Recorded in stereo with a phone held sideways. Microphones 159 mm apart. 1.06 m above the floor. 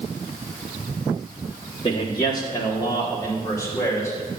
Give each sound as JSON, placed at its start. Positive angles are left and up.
{"t": 1.8, "sound": "a man speaking", "side_deg": 30, "distance_m": 1.8}